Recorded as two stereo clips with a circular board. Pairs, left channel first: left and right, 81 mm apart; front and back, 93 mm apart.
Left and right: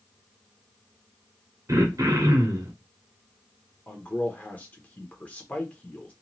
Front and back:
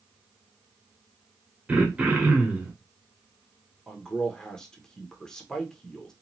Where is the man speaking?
70° left, 0.7 m.